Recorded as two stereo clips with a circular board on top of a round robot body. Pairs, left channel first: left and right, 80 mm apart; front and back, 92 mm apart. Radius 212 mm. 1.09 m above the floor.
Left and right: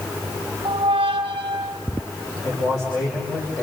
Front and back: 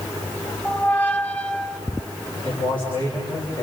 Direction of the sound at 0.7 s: 75° right.